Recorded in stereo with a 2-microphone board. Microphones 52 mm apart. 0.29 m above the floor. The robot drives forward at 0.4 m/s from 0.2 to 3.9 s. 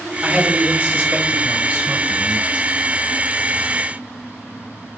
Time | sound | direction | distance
0.2 | a man speaking | 30° right (ahead or behind) | 1.1 m